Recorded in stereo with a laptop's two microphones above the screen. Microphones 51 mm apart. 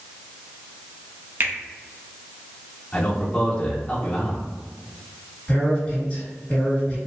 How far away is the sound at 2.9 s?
About 0.8 m.